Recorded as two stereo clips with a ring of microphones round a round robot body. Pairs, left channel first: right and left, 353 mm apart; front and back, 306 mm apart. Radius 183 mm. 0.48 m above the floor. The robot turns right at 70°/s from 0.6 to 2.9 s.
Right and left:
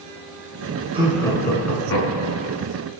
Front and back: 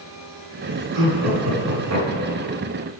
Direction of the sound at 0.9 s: 165° left.